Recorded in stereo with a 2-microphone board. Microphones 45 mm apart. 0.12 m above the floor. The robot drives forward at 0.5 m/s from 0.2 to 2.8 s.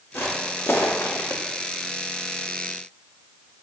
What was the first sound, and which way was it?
Footsteps, 50° left (ahead or behind).